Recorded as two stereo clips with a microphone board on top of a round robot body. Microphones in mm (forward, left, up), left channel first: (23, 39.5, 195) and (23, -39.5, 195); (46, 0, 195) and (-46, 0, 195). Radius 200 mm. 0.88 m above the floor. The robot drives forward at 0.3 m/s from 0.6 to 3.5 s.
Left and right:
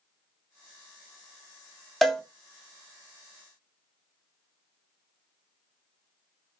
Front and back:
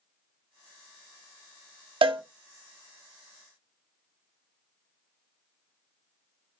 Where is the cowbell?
Straight behind, 0.5 m.